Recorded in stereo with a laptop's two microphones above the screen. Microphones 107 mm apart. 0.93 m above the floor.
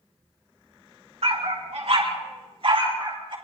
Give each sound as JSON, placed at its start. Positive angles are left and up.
{"t": 1.2, "sound": "a dog barking", "side_deg": -75, "distance_m": 3.5}